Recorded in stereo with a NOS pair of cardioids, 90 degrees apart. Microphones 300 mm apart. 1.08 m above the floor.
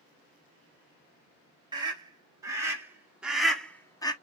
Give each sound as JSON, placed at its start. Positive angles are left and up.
{"t": 1.7, "sound": "a scream", "azimuth_deg": -15, "distance_m": 2.5}